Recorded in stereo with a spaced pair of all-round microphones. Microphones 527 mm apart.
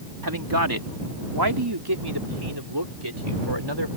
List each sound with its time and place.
0.2 s a man speaking: 40° right (ahead or behind); by 3.9 s 55° right (ahead or behind)